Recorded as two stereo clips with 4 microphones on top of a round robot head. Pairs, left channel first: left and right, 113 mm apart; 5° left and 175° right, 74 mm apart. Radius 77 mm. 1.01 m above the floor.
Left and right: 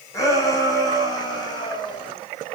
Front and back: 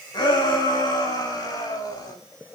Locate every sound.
0.1 s a shout: 30° left, 8.5 m; by 2.1 s 40° left, 8 m